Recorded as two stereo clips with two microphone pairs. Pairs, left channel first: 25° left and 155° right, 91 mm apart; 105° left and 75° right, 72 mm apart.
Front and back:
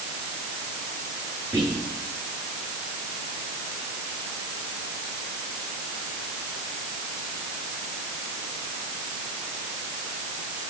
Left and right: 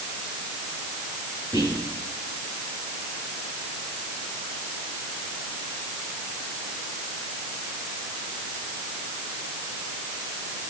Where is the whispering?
90° right, 9.5 m.